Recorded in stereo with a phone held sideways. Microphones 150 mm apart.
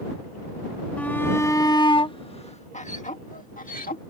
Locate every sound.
1.0 s a shout: 10° left (ahead or behind); by 4.0 s 70° left (ahead or behind)